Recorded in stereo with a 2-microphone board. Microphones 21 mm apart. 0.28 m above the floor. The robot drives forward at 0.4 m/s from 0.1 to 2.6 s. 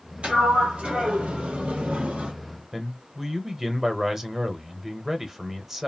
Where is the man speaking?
15° right (ahead or behind), 0.9 m.